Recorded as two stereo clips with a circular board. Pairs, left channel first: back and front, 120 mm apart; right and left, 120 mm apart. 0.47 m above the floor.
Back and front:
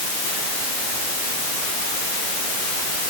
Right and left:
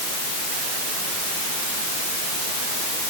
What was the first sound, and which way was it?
Only background noise.